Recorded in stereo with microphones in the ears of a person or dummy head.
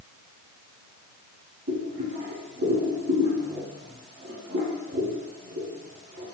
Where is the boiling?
65° right (ahead or behind), 1.2 m.